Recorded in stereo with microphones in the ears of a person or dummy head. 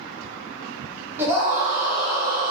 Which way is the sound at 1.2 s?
5° right (ahead or behind).